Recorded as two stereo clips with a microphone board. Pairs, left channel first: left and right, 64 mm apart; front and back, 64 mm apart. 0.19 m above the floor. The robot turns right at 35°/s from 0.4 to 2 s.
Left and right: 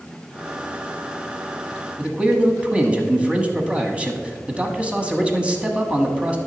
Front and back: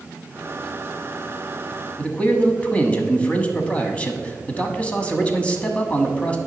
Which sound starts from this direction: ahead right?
A man speaking, at 2.0 s.